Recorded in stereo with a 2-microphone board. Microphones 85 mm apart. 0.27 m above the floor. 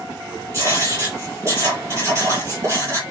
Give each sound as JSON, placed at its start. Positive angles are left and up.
{"t": 0.5, "sound": "writing", "side_deg": -30, "distance_m": 6.5}